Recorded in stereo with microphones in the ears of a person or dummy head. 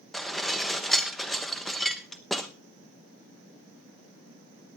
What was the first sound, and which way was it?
Dishes clattering, 5° left (ahead or behind).